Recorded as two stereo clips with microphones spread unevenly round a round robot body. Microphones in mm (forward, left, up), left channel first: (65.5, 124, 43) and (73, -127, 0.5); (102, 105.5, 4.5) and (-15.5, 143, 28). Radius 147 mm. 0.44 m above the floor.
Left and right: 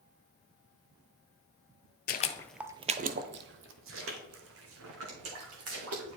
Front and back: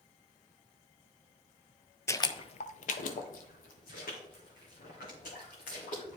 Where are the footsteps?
55° left, 0.6 m; by 6.2 s 60° right, 3 m.